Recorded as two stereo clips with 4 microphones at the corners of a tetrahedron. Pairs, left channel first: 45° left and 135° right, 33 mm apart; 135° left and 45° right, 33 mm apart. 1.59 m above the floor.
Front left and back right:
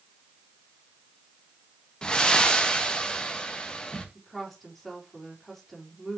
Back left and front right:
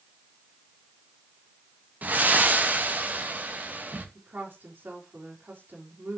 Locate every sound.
2.0 s breathing: 20° right, 1.4 m
4.2 s a woman speaking: 45° right, 3.5 m